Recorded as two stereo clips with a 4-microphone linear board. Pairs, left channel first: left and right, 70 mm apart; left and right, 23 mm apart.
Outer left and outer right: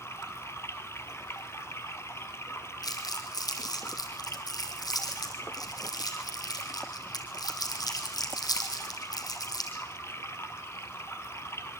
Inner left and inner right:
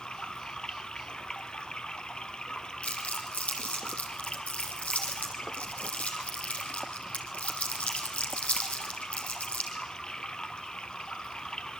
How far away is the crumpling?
About 4.5 m.